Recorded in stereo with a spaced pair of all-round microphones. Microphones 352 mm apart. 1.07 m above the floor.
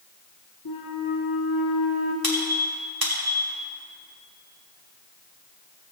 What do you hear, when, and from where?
0.7 s a flute: 85° left, 1.5 m
2.2 s a squeak: 80° right, 2.5 m